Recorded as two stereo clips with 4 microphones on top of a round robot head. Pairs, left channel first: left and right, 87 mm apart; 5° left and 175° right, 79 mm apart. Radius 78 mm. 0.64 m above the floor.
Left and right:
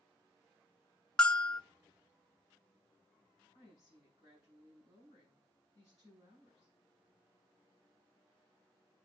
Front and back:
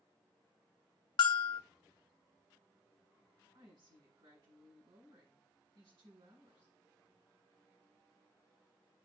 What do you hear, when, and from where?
1.2 s a bell: 10° left, 0.7 m
3.5 s a woman speaking: 175° right, 6 m